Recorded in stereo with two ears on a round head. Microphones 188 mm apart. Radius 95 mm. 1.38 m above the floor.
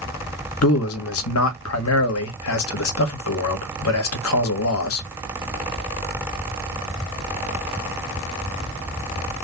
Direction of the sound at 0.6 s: 80° left.